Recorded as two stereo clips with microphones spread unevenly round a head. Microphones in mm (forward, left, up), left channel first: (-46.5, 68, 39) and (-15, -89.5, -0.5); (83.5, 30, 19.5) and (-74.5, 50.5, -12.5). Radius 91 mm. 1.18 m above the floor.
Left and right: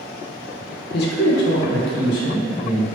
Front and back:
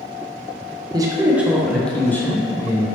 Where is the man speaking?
120° left, 0.5 m; by 3.0 s 65° left, 1.2 m.